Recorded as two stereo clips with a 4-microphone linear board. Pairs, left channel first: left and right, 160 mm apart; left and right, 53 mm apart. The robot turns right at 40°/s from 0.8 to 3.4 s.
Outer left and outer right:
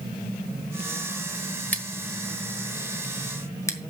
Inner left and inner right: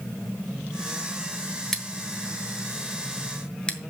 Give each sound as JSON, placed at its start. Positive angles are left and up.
{"t": 1.7, "sound": "scissors", "side_deg": 10, "distance_m": 1.3}